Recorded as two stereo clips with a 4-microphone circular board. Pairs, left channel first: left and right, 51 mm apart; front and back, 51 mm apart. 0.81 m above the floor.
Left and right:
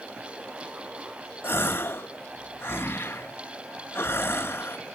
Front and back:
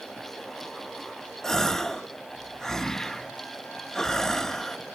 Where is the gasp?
75° left, 0.8 m.